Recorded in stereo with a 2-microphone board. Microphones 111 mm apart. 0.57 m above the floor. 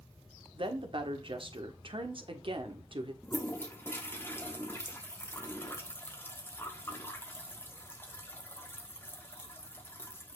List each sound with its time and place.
0.5 s a woman speaking: 50° right (ahead or behind), 1.3 m
3.2 s a toilet flushing: 20° left (ahead or behind), 1.2 m